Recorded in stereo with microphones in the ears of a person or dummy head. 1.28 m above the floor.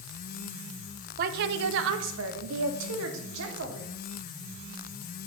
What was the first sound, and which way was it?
A woman speaking, 45° right (ahead or behind).